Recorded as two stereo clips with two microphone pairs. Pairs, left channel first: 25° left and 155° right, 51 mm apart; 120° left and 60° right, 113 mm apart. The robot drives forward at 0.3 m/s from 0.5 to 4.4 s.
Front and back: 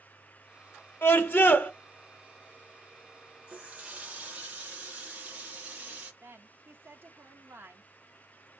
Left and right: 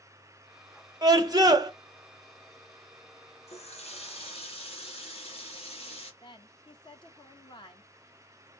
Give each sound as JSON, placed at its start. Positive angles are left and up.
{"t": 1.0, "sound": "a scream", "azimuth_deg": -10, "distance_m": 0.9}
{"t": 3.5, "sound": "a running tap", "azimuth_deg": 140, "distance_m": 1.3}
{"t": 6.2, "sound": "a woman speaking", "azimuth_deg": 165, "distance_m": 1.0}